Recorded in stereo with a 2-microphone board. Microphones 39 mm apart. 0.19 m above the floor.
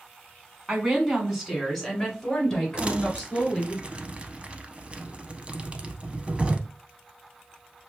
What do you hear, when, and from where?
0.7 s a woman speaking: 20° right (ahead or behind), 1.4 m; by 3.8 s 20° left (ahead or behind), 3 m
2.8 s crumpling: 30° right (ahead or behind), 0.5 m